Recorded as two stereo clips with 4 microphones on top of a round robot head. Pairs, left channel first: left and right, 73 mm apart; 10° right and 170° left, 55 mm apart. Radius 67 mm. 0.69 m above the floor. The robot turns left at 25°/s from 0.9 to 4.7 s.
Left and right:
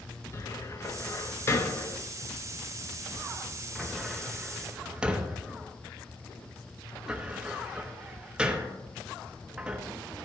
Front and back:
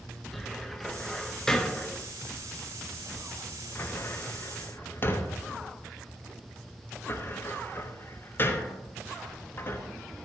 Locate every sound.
0.3 s a cupboard door: 75° left, 1.1 m; by 9.8 s 20° right, 1.1 m